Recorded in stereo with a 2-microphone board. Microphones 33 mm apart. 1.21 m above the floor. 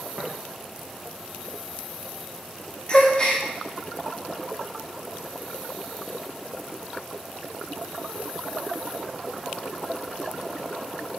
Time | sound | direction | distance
0.2 | tapping | 50° right (ahead or behind) | 0.8 m
2.9 | a gasp | 25° left (ahead or behind) | 0.6 m